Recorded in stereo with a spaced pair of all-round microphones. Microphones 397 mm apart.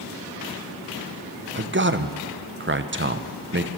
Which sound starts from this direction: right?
A man speaking, at 1.6 s.